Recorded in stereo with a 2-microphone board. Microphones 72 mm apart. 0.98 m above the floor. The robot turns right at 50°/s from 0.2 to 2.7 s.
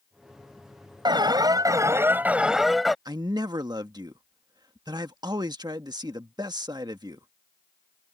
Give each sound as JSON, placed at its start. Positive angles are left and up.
{"t": 1.1, "sound": "an alarm", "azimuth_deg": -85}
{"t": 3.0, "sound": "a man speaking", "side_deg": -70}